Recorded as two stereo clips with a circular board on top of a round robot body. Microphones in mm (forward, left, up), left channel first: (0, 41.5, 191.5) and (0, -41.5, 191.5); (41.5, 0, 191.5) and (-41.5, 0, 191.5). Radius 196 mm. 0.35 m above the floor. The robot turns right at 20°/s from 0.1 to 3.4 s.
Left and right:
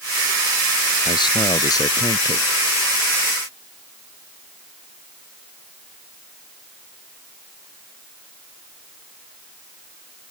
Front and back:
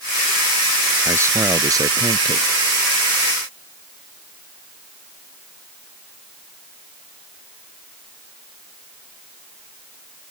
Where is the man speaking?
120° left; by 2.5 s 145° left.